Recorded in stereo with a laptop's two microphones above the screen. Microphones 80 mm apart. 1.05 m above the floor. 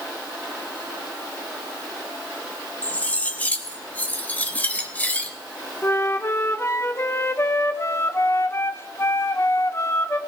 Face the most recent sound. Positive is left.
turn(degrees=30)  # may be behind; listen again after turning